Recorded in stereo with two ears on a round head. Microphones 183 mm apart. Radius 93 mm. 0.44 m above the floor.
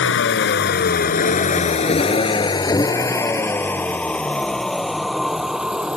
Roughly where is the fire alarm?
I don't hear a fire alarm.